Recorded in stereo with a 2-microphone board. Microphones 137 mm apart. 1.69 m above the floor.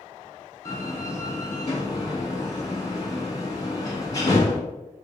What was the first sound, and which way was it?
A door slam, 25° left (ahead or behind).